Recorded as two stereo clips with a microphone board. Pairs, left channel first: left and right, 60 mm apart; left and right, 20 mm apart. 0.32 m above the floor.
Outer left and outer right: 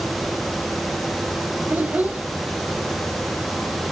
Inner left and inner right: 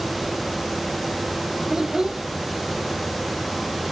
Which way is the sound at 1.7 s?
25° right (ahead or behind).